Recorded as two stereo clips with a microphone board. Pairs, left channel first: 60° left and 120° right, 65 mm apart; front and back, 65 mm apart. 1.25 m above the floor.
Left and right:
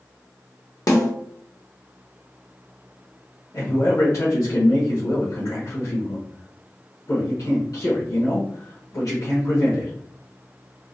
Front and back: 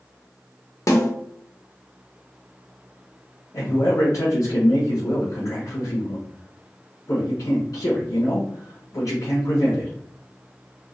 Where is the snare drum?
35° left, 0.9 m.